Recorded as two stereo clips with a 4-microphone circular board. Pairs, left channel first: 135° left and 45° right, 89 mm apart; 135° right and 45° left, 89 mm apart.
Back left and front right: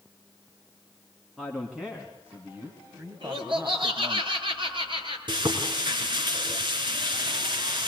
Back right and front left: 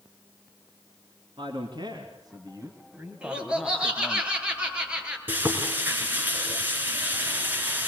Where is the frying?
25° right, 3 m.